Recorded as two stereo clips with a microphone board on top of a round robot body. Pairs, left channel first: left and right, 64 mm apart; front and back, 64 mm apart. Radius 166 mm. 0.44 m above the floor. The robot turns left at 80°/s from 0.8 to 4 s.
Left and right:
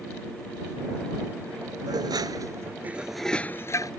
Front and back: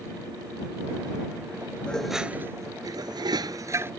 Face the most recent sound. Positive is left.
turn(degrees=115)